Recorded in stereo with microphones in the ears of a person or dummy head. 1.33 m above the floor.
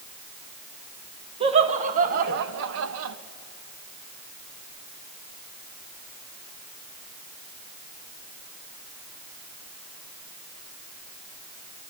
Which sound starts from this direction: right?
Laughter, at 1.4 s.